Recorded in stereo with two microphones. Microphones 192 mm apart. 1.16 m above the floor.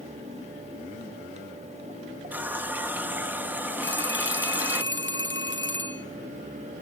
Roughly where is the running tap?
Centre.